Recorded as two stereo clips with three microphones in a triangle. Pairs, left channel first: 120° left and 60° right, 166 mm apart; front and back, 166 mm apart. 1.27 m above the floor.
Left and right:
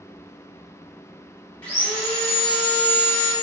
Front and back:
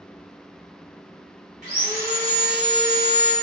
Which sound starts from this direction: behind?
Sawing, at 1.6 s.